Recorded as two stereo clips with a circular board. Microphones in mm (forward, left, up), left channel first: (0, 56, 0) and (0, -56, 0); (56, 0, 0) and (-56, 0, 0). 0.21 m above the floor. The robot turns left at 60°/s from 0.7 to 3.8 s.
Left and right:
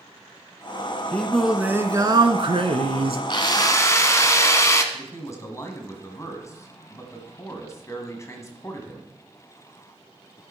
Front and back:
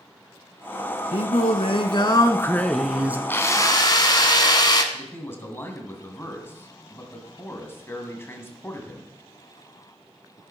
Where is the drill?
70° left, 0.9 m; by 4.8 s 35° left, 0.9 m.